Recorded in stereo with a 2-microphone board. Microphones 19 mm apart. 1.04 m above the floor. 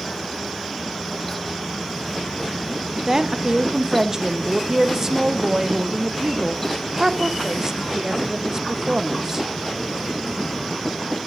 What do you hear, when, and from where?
3.1 s a woman speaking: 25° right (ahead or behind), 0.7 m